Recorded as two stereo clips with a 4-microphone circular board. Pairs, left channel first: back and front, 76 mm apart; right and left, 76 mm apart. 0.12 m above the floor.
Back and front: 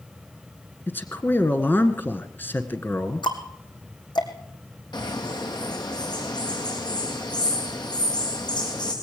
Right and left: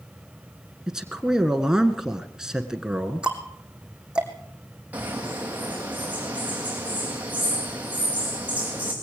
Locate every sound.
0.9 s a man speaking: 160° left, 1.4 m
3.2 s ticking: 165° left, 2 m
4.9 s a bird: 155° left, 3.5 m